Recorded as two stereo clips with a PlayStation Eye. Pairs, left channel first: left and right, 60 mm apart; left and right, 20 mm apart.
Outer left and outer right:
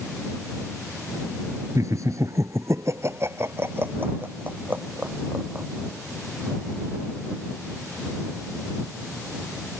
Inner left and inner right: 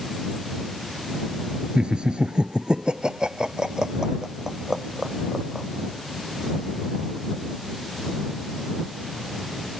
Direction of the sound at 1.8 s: 55° right (ahead or behind).